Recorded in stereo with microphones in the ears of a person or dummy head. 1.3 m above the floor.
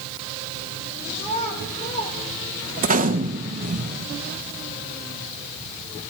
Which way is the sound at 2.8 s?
45° right (ahead or behind).